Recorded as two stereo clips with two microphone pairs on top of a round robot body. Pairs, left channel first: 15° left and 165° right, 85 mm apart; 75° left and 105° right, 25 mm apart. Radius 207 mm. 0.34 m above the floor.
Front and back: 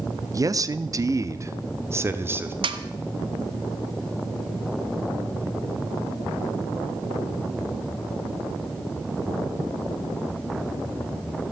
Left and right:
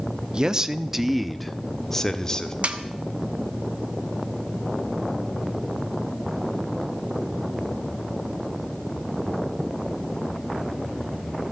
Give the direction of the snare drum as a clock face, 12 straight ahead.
5 o'clock.